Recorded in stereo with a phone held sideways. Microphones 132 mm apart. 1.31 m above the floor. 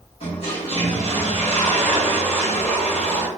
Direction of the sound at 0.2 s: 50° left (ahead or behind).